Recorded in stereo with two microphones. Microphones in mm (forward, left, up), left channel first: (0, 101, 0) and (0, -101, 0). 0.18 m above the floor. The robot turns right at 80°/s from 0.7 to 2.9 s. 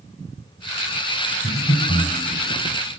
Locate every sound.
1.4 s breathing: 20° left (ahead or behind), 1.2 m; by 2.1 s 10° left (ahead or behind), 1.2 m